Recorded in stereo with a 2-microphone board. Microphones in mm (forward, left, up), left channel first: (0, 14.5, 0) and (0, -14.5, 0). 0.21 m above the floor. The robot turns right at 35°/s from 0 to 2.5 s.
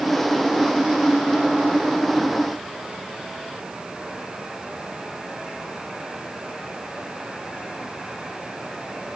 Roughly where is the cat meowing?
I don't hear a cat meowing.